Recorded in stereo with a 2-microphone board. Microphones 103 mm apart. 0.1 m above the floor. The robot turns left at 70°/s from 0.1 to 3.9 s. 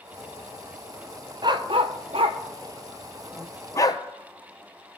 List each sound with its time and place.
1.4 s a dog barking: 45° right (ahead or behind), 1.0 m; by 4.0 s 40° left (ahead or behind), 1.0 m